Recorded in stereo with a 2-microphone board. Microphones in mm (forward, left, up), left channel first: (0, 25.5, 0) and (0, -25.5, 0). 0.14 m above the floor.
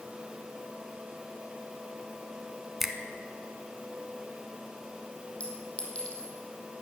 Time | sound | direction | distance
2.8 | a finger snap | 5° right (ahead or behind) | 1.0 m
5.4 | a clink | 20° left (ahead or behind) | 3 m